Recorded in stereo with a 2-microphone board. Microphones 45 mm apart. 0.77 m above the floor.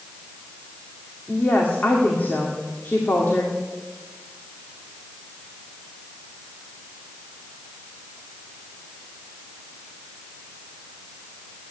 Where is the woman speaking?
45° left (ahead or behind), 2 m.